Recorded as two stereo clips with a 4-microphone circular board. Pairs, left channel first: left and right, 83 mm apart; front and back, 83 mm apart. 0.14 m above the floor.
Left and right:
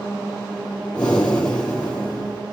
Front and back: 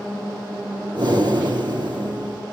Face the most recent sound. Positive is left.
turn(degrees=165)